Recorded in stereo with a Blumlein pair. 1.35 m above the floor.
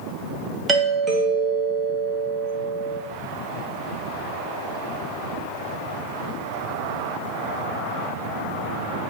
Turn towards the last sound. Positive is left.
turn(degrees=-15)